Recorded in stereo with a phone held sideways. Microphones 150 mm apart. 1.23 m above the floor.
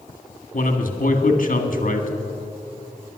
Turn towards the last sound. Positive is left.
turn(degrees=60)  # may be behind; listen again after turning